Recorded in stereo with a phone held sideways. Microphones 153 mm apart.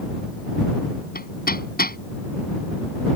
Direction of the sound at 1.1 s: 85° left.